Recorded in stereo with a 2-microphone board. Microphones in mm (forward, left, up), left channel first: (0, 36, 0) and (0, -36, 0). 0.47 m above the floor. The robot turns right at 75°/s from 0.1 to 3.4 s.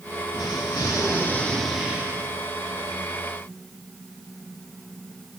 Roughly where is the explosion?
Left.